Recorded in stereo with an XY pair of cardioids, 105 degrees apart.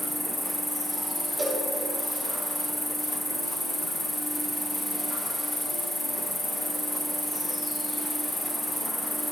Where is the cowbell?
5° right, 3 m.